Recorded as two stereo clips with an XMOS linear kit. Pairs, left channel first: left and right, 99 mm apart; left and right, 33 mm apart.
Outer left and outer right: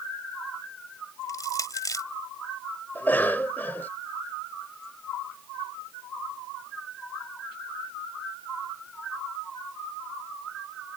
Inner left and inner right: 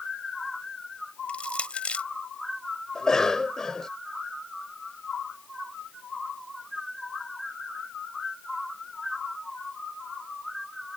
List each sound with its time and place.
1.3 s crushing: 40° left (ahead or behind)
3.0 s a cough: 20° left (ahead or behind)